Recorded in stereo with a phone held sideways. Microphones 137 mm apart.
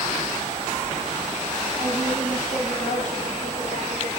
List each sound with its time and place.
1.8 s a woman speaking: 60° left (ahead or behind), 8 m; by 4.1 s 55° left (ahead or behind), 6 m